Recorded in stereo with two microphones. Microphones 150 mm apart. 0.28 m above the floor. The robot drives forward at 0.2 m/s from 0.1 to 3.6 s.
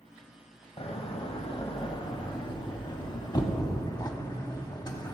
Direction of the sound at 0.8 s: 40° left (ahead or behind).